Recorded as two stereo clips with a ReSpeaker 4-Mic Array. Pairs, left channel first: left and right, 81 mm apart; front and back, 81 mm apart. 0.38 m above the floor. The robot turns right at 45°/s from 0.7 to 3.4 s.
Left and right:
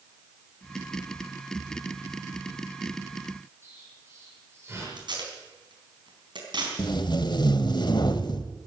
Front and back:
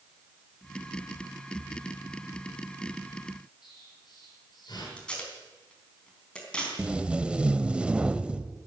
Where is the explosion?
30° right, 7.5 m.